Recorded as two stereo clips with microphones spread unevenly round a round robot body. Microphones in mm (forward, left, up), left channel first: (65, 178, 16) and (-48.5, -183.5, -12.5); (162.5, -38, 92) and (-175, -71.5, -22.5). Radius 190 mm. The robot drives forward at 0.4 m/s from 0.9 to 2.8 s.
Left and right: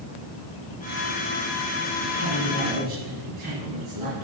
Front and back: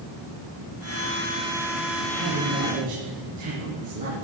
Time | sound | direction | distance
2.0 | a man speaking | 145° right | 5.5 m